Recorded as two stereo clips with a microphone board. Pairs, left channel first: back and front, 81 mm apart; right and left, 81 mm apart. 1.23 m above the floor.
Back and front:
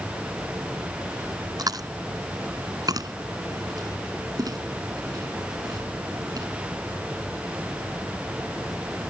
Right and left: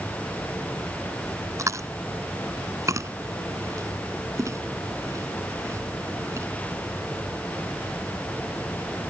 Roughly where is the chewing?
Ahead left.